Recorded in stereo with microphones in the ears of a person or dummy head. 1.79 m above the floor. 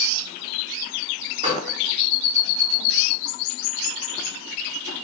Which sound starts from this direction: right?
A gunshot, at 1.4 s.